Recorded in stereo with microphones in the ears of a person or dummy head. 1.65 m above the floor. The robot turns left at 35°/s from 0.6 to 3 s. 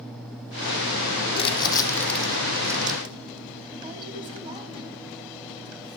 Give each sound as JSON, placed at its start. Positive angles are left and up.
{"t": 1.3, "sound": "crumpling", "side_deg": 30, "distance_m": 0.9}